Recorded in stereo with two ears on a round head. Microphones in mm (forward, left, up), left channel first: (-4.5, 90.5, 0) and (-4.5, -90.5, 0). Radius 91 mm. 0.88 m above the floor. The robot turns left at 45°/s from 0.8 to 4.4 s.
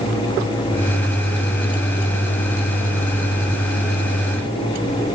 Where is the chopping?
No chopping in this recording.